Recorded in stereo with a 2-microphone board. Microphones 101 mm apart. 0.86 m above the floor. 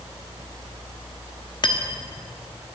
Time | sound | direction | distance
1.6 | cutlery clinking | 45° left (ahead or behind) | 1.0 m